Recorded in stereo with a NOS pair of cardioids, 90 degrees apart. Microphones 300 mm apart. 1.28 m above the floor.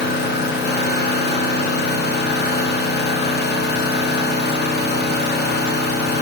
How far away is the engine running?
About 1.5 m.